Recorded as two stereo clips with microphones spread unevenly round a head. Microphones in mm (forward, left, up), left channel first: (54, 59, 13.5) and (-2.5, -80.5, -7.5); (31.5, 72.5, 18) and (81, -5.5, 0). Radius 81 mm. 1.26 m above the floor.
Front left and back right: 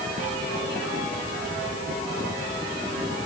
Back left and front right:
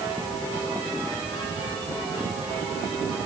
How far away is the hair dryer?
No hair dryer in this recording.